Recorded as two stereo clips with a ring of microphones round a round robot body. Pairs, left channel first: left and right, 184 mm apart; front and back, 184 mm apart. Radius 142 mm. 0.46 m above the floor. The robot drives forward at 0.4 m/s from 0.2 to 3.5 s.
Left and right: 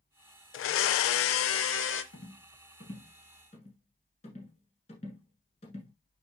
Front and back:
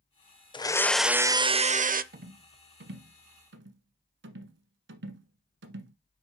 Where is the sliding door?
No sliding door in this recording.